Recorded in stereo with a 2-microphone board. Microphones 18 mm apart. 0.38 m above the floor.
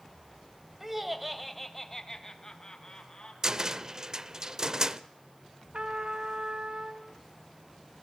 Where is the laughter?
15° right (ahead or behind), 2.0 m; by 3.3 s 50° left (ahead or behind), 3 m.